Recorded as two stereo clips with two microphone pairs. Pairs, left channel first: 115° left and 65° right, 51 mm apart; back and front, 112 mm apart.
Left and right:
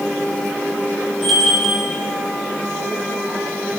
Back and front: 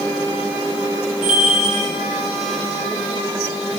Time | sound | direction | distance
1.2 | a bell | 165° right | 2.5 m